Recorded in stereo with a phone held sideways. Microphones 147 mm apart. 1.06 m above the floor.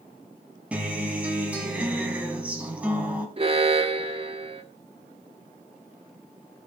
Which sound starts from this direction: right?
An alarm, at 3.4 s.